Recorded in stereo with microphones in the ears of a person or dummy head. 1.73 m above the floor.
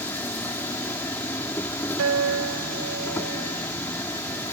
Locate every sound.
0.0 s an insect: 15° left (ahead or behind)
2.0 s a guitar: 80° right